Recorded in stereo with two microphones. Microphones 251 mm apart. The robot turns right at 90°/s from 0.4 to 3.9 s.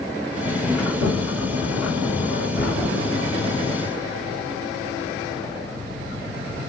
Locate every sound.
0.8 s a sliding door: 110° right, 2.5 m; by 3.8 s 160° left, 2.5 m